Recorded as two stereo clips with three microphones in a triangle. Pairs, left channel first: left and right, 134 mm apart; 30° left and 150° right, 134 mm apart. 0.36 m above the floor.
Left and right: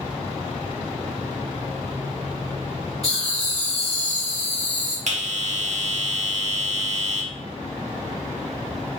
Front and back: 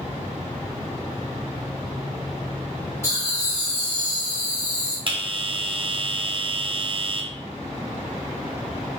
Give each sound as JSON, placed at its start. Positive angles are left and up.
{"t": 3.0, "sound": "laughter", "azimuth_deg": 90, "distance_m": 1.8}
{"t": 5.1, "sound": "a bell", "azimuth_deg": -105, "distance_m": 0.6}